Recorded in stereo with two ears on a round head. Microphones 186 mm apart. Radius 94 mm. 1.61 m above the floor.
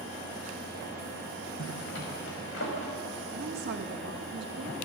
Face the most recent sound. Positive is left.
turn(degrees=-50)  # may be behind; listen again after turning